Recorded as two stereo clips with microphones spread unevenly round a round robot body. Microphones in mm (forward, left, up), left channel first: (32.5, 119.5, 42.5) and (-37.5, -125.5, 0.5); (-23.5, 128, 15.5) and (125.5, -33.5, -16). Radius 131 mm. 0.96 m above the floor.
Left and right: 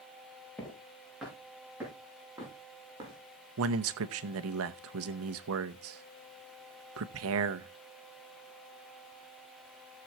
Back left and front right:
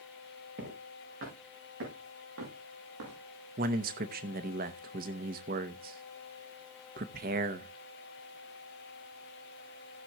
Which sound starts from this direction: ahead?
Footsteps, at 0.6 s.